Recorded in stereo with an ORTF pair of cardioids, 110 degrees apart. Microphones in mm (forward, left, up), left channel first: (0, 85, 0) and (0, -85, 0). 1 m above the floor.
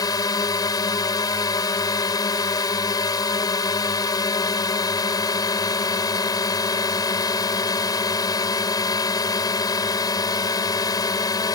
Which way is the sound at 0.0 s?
20° left.